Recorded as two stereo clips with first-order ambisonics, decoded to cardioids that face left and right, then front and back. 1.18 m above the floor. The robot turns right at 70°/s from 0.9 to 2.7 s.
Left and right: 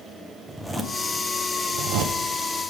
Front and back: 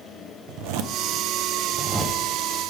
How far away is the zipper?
About 0.5 m.